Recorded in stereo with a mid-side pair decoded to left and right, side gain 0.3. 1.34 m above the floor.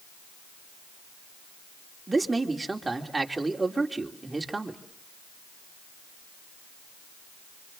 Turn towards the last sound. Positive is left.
turn(degrees=-25)